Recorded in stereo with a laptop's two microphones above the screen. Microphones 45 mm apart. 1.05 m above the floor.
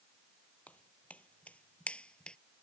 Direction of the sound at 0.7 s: 30° left (ahead or behind).